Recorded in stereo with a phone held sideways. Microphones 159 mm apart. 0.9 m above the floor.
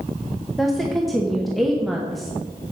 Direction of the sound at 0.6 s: Centre (ahead or behind).